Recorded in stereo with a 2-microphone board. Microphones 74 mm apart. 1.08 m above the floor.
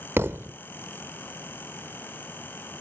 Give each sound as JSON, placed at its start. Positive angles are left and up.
{"t": 0.2, "sound": "a thud", "side_deg": -35}